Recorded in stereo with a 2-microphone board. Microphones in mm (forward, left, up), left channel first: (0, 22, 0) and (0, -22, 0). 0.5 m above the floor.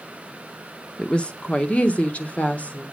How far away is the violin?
No violin in this recording.